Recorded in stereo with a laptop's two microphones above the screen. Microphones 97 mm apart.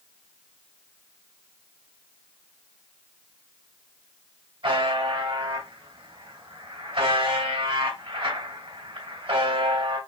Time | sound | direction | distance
4.6 | a buzzer | 70° right (ahead or behind) | 3 m